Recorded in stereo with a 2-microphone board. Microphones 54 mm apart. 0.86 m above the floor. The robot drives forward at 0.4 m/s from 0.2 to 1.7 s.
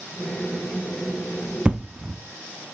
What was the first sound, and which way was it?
An explosion, 20° right (ahead or behind).